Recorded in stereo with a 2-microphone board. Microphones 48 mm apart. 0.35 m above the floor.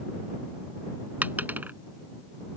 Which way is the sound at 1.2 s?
40° right (ahead or behind).